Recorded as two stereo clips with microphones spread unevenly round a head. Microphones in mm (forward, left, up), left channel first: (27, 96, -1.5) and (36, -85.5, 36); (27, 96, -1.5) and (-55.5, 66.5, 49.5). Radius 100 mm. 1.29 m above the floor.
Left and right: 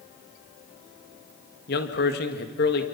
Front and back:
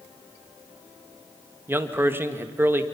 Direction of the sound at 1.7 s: 135° left.